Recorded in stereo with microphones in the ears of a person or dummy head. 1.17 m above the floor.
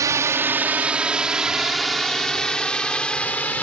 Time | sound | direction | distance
0.0 | a drone | 10° right (ahead or behind) | ?